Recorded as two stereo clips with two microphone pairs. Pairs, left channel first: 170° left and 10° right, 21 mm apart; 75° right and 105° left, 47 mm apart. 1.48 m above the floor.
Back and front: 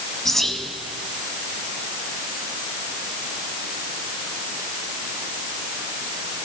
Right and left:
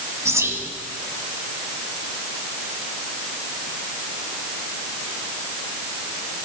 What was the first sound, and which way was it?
Whispering, 100° left.